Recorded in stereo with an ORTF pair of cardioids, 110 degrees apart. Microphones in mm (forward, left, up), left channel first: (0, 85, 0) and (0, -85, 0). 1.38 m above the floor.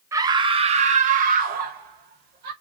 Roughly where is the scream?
Ahead.